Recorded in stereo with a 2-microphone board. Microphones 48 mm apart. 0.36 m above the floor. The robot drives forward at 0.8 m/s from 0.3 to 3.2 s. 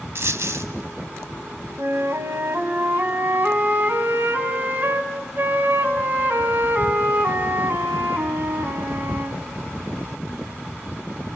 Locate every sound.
0.1 s a dropped coin: 65° right (ahead or behind), 1.3 m; by 0.7 s 70° right (ahead or behind), 1.2 m
1.8 s a flute: 65° right (ahead or behind), 1.4 m; by 9.4 s 40° right (ahead or behind), 1.8 m